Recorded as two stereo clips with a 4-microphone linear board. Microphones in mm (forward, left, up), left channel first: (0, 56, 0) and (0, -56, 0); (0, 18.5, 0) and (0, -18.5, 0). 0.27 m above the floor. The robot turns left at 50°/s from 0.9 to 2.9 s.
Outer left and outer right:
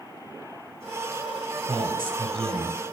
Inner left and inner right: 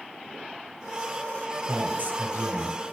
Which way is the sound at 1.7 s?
75° right.